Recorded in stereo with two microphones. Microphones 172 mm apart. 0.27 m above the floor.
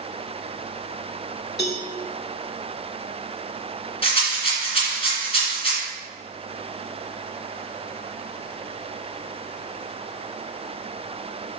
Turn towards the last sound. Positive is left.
turn(degrees=35)  # may be behind; listen again after turning